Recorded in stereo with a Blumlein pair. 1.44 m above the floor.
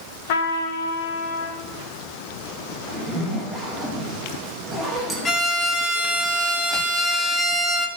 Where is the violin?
20° left, 1.3 m.